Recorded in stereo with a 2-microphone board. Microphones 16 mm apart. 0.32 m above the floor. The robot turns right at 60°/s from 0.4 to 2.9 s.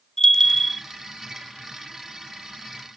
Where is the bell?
30° left (ahead or behind), 1.1 m; by 0.8 s 5° left (ahead or behind), 1.1 m.